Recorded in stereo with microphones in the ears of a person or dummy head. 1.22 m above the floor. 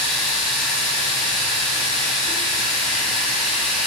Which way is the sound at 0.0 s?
5° left (ahead or behind).